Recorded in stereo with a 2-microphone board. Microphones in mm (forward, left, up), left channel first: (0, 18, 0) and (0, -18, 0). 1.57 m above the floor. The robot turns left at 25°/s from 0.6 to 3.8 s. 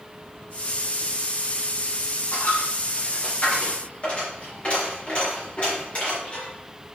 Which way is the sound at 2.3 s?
65° left (ahead or behind).